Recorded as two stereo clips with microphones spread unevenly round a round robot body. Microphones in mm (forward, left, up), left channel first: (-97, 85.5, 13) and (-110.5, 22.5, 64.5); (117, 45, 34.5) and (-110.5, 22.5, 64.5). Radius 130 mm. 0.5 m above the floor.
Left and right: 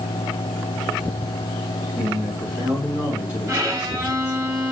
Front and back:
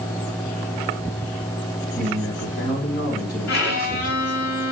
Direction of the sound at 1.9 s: 40° left.